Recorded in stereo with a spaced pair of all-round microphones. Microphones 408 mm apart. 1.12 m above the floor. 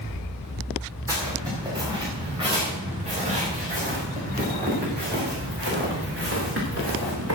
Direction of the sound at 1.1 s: 10° right (ahead or behind).